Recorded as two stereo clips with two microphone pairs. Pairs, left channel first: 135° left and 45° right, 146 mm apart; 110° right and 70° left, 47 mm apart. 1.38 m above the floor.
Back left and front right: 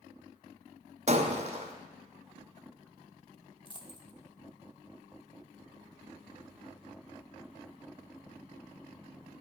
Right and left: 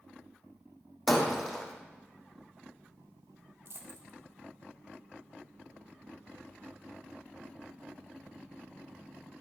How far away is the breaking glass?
About 2.5 m.